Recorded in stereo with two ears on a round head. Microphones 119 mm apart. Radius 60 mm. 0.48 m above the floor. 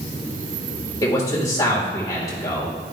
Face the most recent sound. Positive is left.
turn(degrees=25)  # may be behind; listen again after turning